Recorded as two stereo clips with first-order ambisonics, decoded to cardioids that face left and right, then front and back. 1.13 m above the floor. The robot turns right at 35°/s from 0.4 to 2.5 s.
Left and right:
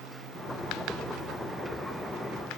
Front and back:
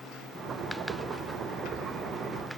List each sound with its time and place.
Only background noise.